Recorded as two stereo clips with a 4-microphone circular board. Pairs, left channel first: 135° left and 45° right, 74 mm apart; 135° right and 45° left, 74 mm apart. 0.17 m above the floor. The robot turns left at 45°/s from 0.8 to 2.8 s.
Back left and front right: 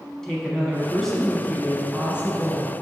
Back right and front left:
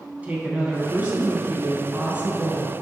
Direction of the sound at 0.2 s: 65° left.